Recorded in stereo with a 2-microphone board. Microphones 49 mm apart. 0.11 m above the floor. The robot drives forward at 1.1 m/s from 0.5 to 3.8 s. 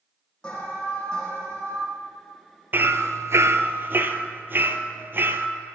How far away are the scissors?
I don't hear scissors.